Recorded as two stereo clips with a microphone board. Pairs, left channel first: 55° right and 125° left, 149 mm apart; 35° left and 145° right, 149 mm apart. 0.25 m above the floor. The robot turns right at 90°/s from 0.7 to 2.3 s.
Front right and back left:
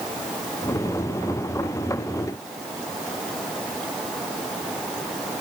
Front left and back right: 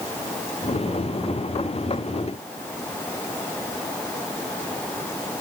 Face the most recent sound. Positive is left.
No sound to turn to.